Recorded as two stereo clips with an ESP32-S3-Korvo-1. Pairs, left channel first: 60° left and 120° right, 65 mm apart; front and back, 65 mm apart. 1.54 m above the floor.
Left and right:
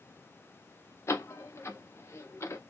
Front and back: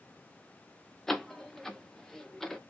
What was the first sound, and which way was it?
A door slam, 85° left.